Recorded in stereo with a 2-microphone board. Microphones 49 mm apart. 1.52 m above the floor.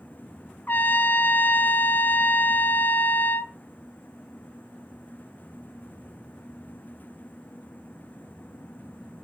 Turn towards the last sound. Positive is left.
turn(degrees=40)  # may be behind; listen again after turning